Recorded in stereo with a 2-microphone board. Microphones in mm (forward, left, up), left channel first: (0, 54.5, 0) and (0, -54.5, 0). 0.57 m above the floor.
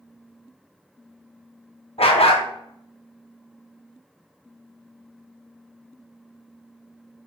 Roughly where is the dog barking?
Left.